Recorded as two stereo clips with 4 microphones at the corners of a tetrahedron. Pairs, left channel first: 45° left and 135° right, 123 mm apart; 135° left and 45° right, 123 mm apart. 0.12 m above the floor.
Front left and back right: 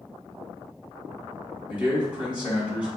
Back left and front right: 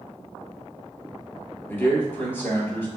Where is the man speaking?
165° left, 1.5 m.